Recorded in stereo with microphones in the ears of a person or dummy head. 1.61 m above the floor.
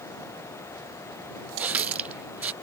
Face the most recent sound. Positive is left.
turn(degrees=-5)  # may be behind; listen again after turning